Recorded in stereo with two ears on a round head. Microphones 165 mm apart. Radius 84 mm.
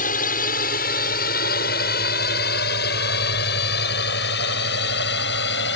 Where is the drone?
45° left (ahead or behind); by 5.8 s 60° left (ahead or behind).